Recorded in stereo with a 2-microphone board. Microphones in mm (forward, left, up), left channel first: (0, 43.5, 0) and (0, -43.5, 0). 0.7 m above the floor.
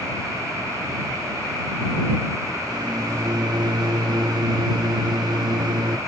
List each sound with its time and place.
2.7 s a microwave: 55° right (ahead or behind)